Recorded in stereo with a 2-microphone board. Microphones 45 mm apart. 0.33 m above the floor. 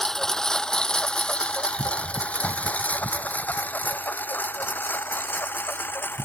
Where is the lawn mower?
10° left (ahead or behind); by 6.3 s 45° left (ahead or behind).